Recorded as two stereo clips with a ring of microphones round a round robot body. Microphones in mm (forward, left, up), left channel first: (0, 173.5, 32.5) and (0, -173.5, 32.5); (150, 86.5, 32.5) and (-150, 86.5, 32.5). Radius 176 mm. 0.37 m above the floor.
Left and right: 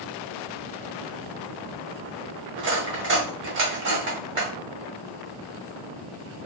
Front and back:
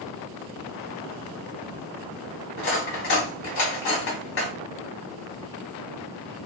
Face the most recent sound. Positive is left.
turn(degrees=-40)